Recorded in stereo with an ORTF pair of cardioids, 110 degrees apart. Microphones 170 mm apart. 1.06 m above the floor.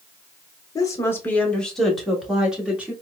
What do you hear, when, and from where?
0.8 s a woman speaking: 25° left, 0.9 m; by 2.9 s 10° right, 1.7 m